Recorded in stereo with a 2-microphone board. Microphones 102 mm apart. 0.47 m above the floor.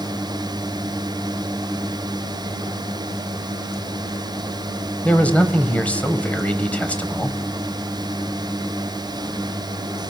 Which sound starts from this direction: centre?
A man speaking, at 5.0 s.